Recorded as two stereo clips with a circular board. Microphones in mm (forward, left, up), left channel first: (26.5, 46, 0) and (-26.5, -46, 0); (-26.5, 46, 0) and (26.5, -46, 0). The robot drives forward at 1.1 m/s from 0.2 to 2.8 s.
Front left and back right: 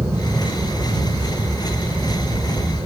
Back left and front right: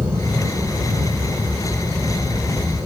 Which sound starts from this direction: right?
An aircraft, at 0.0 s.